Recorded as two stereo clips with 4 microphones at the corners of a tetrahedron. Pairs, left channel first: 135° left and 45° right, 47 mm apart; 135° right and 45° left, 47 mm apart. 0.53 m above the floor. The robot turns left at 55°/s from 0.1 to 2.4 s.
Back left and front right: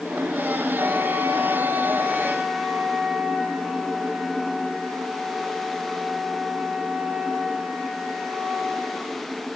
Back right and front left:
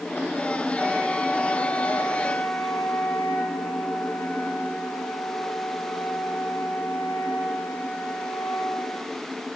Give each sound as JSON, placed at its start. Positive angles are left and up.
{"t": 0.7, "sound": "a flute", "azimuth_deg": -20, "distance_m": 3.5}